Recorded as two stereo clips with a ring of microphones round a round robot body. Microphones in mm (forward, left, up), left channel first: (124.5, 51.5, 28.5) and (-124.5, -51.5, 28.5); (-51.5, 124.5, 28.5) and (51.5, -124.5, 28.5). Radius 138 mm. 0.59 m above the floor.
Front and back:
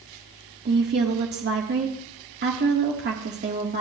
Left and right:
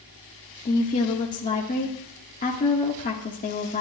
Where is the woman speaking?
165° left, 1.4 m.